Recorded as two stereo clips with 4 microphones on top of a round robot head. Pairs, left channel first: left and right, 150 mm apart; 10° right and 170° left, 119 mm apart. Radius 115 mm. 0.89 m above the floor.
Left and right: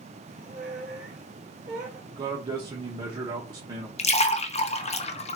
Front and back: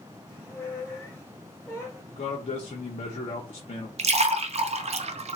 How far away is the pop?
I don't hear a pop.